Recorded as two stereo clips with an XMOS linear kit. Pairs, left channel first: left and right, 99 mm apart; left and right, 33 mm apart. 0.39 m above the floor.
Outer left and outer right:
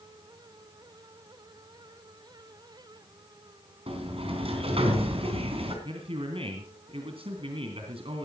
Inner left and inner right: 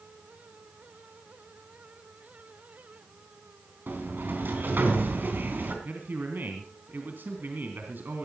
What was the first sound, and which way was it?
A sliding door, 75° right (ahead or behind).